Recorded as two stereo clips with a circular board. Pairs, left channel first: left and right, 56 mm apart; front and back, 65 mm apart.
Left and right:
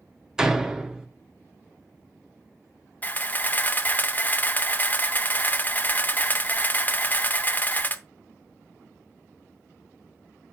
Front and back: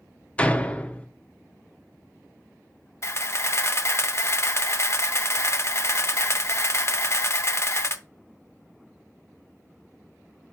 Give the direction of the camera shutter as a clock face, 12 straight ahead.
11 o'clock.